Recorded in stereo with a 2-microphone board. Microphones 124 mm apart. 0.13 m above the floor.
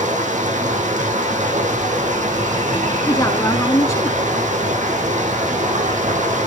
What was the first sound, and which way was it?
Running water, 80° right.